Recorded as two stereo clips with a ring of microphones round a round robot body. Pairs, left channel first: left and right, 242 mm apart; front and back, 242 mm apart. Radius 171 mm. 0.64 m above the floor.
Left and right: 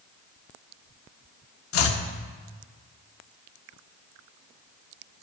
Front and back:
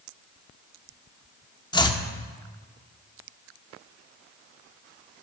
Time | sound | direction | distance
1.7 | chopping | 70° left | 0.9 m